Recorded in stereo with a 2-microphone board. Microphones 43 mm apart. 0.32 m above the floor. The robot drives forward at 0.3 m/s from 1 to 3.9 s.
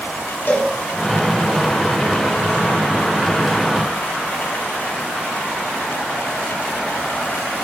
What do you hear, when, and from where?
0.5 s a cowbell: 60° left (ahead or behind), 1.4 m